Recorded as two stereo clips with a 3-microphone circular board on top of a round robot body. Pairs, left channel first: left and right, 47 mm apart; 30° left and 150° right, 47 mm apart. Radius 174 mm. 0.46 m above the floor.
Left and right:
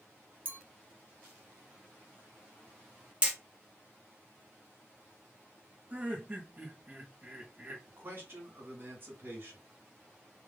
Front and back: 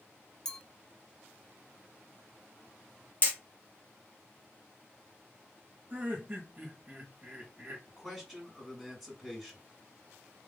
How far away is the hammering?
About 1.2 m.